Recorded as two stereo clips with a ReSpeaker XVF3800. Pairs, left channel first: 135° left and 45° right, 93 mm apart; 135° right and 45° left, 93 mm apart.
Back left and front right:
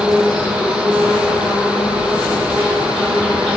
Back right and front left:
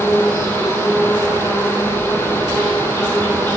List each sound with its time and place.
0.0 s an insect: 60° left, 1.7 m